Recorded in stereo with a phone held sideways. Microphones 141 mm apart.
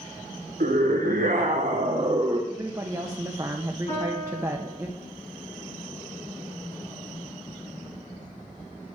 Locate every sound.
0.6 s a scream: 80° right, 1.2 m; by 2.4 s 30° right (ahead or behind), 1.0 m
2.5 s a woman speaking: 25° right (ahead or behind), 0.8 m
3.9 s a piano: 40° left (ahead or behind), 6.5 m